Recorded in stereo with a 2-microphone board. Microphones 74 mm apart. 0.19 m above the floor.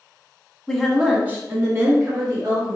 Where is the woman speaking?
5° left (ahead or behind), 1.2 m; by 2.8 s 50° right (ahead or behind), 2 m.